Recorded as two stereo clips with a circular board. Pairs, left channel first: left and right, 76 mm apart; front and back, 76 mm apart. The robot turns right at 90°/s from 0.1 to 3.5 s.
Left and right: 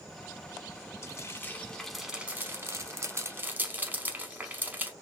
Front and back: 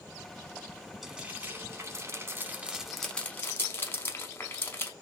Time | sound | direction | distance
1.0 | frying | 95° left | 0.6 m